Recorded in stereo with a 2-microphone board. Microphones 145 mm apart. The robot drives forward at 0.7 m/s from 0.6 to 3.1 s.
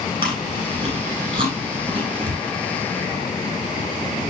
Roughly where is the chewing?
Right.